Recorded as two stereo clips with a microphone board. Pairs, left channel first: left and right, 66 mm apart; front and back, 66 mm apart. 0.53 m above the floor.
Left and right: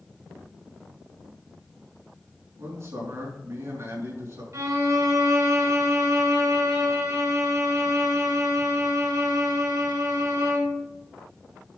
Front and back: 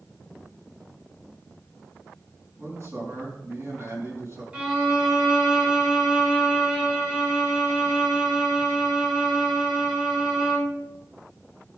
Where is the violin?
105° right, 2.5 m.